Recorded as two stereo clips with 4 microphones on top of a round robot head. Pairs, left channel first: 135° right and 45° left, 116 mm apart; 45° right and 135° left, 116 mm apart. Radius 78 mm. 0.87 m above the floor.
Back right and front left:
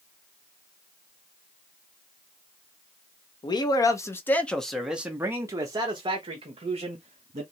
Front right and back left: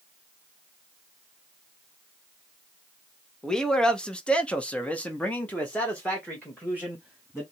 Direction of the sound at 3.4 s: 125° right.